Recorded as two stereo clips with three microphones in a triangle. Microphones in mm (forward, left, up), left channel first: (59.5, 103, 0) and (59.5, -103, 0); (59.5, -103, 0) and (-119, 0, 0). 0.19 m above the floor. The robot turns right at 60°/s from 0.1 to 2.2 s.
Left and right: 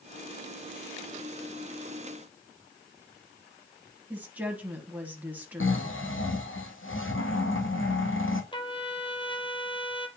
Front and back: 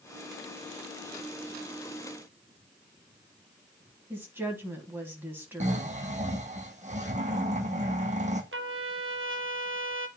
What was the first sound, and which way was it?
A woman speaking, 150° right.